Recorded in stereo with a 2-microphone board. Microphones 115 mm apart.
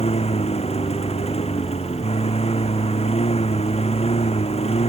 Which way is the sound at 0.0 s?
65° left (ahead or behind).